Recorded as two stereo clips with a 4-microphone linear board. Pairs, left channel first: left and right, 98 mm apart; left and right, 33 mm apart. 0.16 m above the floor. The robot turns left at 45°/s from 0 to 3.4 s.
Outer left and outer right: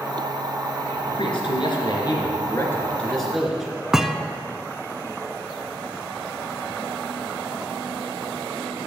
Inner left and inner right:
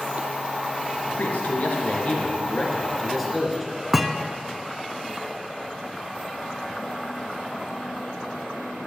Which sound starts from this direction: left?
A man speaking, at 1.1 s.